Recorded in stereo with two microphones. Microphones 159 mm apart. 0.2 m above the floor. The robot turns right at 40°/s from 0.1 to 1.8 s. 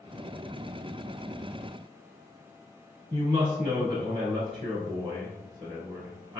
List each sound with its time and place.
3.1 s a woman speaking: 35° right (ahead or behind), 1.2 m